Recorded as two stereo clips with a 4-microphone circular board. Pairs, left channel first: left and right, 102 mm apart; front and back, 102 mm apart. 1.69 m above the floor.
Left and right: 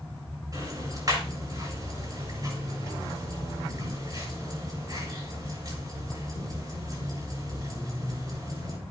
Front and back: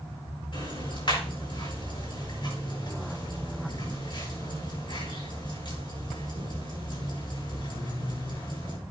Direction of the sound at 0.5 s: 40° right.